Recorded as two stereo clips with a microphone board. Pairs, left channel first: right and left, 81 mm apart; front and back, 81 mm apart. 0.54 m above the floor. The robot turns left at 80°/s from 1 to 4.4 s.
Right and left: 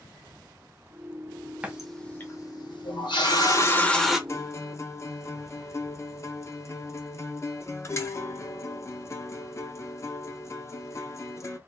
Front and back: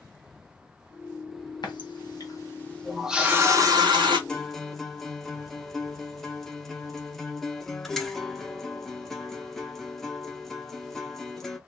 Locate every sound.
1.6 s a running tap: 20° left, 0.9 m; by 4.2 s 175° left, 0.9 m
4.3 s a guitar: 75° right, 0.6 m; by 11.6 s 85° right, 0.6 m